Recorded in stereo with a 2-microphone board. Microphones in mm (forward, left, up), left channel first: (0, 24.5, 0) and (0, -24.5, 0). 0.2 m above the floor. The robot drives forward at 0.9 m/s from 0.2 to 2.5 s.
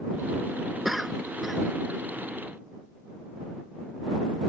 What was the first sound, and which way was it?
A cough, centre (ahead or behind).